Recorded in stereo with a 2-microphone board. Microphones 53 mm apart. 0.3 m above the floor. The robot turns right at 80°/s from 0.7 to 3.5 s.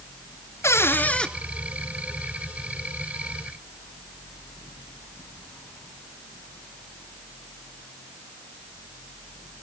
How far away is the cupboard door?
About 1.2 m.